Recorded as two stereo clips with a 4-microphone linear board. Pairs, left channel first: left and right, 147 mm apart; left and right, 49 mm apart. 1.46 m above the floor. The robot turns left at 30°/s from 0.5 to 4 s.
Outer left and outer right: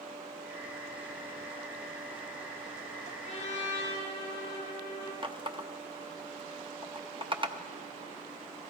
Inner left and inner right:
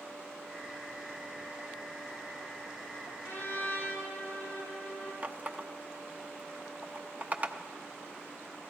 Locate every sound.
3.2 s a trumpet: 55° left (ahead or behind), 9.5 m; by 5.1 s 30° left (ahead or behind), 9.5 m
5.2 s a running tap: 35° right (ahead or behind), 0.8 m